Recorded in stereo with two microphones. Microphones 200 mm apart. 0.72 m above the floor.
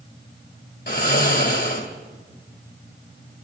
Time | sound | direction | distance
0.9 | snoring | 55° left (ahead or behind) | 2 m